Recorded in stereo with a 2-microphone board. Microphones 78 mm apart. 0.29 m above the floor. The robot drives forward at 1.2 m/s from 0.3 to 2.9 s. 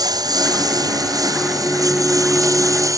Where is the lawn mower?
55° right (ahead or behind); by 3.0 s 45° right (ahead or behind).